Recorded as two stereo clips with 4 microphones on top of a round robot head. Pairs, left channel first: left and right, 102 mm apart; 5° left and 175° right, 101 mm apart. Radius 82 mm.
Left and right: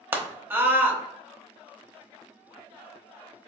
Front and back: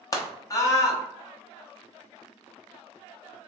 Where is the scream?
30° right, 1.0 m.